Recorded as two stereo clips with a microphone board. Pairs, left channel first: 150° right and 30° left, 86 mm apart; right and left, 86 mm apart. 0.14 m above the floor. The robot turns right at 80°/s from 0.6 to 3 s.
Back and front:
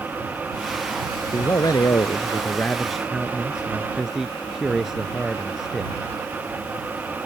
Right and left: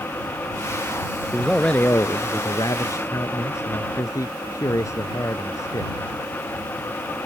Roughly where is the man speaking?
Behind.